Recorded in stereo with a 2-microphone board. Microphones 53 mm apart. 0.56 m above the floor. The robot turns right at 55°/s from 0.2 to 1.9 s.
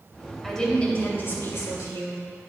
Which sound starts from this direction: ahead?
A woman speaking, at 0.4 s.